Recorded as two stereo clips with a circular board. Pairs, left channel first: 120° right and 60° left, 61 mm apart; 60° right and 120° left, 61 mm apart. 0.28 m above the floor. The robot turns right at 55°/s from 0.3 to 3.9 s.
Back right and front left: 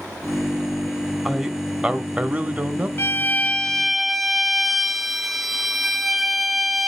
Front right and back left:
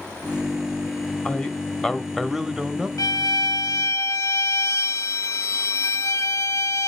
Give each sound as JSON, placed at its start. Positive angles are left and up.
{"t": 1.2, "sound": "a man speaking", "azimuth_deg": -25, "distance_m": 0.9}
{"t": 3.0, "sound": "a violin", "azimuth_deg": -80, "distance_m": 0.7}